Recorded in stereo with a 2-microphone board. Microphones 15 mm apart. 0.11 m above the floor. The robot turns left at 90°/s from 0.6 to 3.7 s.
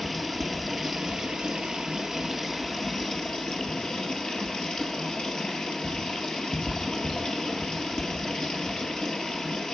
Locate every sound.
0.0 s running water: 10° right, 1.5 m; by 9.7 s 70° left, 1.5 m